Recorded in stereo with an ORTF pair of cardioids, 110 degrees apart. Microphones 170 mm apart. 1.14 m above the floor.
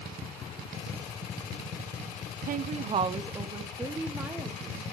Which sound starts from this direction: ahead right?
A woman speaking, at 2.5 s.